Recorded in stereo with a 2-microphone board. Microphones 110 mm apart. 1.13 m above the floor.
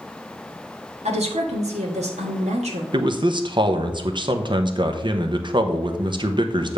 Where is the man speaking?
45° right (ahead or behind), 0.8 m.